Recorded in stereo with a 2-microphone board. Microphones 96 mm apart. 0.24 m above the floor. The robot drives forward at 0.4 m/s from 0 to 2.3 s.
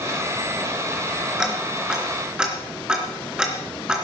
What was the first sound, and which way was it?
Ticking, 10° right (ahead or behind).